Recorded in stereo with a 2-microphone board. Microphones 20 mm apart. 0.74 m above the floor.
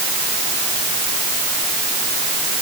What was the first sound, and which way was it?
Only background noise.